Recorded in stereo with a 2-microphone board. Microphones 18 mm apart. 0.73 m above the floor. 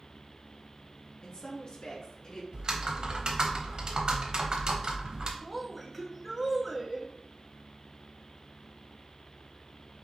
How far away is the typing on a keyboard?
About 0.8 m.